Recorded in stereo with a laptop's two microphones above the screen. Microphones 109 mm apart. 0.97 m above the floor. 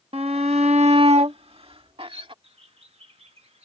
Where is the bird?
70° right (ahead or behind).